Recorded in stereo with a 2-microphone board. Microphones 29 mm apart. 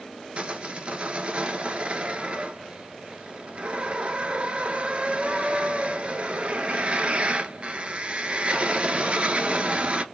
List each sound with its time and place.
0.4 s sawing: 45° right (ahead or behind), 0.5 m